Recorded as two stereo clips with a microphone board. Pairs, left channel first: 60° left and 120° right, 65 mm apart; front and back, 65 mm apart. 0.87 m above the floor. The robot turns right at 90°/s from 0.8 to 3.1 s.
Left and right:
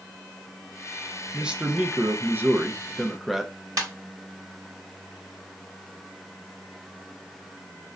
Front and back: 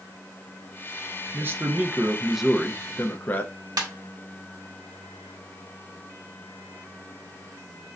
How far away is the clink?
No clink in this recording.